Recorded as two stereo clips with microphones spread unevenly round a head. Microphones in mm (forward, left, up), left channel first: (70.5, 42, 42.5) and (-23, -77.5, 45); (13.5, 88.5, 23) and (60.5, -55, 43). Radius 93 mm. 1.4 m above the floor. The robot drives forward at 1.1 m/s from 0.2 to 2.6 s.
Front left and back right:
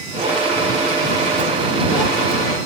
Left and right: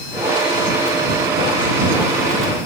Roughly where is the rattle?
I don't hear a rattle.